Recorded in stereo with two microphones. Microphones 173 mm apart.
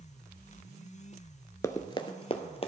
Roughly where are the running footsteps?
Centre.